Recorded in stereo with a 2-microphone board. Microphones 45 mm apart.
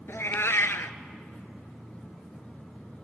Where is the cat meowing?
80° left, 0.8 m.